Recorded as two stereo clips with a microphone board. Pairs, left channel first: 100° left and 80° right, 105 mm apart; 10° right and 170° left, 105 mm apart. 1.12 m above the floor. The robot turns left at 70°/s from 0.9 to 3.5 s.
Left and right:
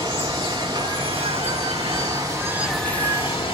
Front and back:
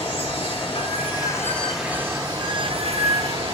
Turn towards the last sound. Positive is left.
turn(degrees=135)